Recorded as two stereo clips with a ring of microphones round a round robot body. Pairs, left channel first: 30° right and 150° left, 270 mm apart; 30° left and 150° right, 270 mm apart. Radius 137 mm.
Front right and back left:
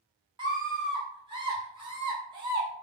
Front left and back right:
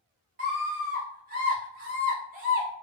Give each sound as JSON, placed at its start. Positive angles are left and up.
{"t": 0.4, "sound": "a scream", "azimuth_deg": -155, "distance_m": 1.5}